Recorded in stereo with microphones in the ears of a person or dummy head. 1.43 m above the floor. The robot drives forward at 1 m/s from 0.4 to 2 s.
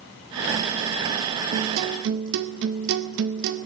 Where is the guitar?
45° right (ahead or behind), 1.0 m.